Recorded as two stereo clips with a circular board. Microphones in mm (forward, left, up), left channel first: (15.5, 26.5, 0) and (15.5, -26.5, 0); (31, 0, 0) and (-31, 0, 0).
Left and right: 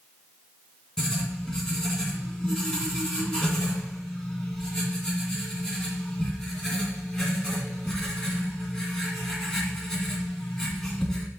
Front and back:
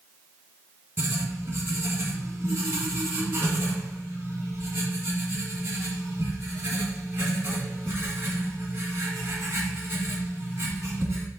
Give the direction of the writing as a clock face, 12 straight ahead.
6 o'clock.